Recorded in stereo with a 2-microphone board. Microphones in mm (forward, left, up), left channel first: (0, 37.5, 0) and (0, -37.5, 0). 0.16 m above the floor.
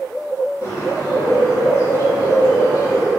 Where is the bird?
35° left (ahead or behind), 1.4 m.